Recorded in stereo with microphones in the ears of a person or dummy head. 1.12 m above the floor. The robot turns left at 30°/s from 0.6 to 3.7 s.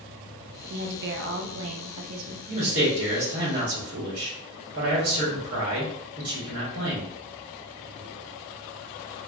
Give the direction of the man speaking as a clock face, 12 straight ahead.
1 o'clock.